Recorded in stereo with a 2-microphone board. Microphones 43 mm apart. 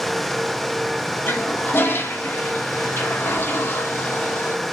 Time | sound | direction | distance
1.3 | a toilet flushing | 60° left (ahead or behind) | 0.8 m